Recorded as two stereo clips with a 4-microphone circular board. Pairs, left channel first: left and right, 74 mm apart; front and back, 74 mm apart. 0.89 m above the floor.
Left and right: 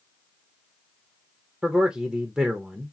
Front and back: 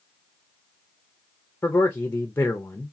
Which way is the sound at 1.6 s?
20° right.